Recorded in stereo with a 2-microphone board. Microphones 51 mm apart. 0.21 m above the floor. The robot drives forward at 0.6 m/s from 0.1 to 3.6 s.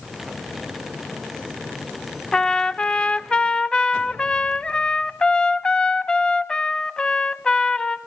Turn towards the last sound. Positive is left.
turn(degrees=15)  # may be behind; listen again after turning